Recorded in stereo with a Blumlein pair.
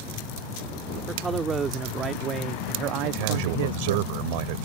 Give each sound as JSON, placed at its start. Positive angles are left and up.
{"t": 1.1, "sound": "a man speaking", "azimuth_deg": -15}
{"t": 3.0, "sound": "a man speaking", "azimuth_deg": -45}